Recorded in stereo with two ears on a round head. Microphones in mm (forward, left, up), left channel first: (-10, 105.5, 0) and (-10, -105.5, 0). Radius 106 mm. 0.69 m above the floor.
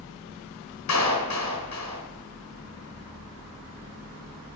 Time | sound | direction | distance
0.9 | a clap | 85° left | 6 m